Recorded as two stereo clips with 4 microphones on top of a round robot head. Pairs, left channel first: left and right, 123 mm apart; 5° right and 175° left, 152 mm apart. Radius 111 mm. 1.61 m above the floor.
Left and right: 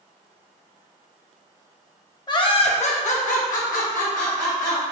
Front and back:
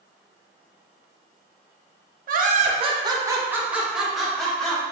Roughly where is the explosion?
I don't hear an explosion.